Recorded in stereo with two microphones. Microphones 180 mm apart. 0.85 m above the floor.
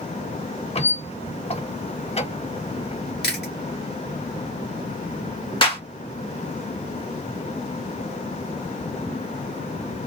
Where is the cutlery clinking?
No cutlery clinking in this recording.